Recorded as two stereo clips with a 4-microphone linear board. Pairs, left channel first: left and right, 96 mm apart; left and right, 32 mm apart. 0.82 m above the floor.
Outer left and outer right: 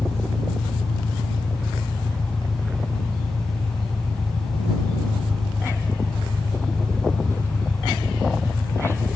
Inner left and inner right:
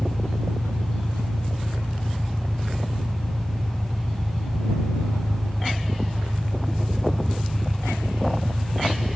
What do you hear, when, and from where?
0.0 s an engine running: 35° left (ahead or behind)